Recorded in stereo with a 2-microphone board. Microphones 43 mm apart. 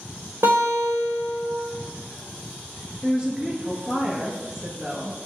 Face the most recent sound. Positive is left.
turn(degrees=-20)  # may be behind; listen again after turning